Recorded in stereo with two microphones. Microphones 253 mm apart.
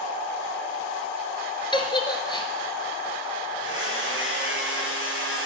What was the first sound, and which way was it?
A giggle, 20° left (ahead or behind).